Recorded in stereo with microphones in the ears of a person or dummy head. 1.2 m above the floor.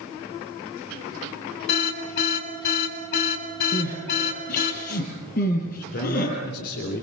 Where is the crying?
45° left (ahead or behind), 6.5 m.